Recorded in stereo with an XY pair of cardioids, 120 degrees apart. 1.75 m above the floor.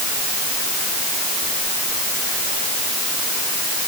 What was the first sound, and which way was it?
Only background noise.